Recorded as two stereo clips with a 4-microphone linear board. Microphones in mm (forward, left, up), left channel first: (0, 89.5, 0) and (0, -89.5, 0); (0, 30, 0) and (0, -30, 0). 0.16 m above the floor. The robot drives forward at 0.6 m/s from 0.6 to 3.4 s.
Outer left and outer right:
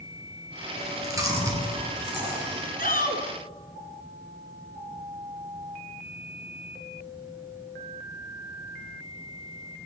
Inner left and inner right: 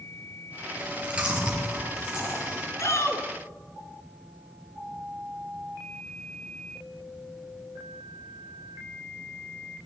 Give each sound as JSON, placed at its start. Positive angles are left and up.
{"t": 0.8, "sound": "chewing", "side_deg": -20, "distance_m": 3.0}
{"t": 2.8, "sound": "a shout", "side_deg": 55, "distance_m": 1.9}